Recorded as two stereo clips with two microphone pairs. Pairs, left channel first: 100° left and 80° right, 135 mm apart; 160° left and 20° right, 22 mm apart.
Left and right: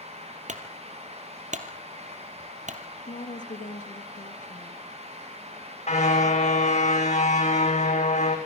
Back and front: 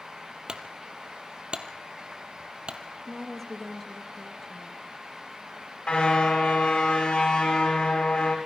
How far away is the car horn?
About 5 m.